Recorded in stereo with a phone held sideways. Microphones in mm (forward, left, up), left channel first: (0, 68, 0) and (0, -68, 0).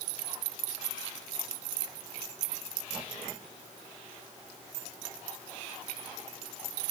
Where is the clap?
I don't hear a clap.